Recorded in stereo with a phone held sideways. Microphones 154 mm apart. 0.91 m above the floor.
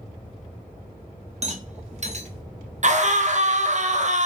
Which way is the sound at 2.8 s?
50° right (ahead or behind).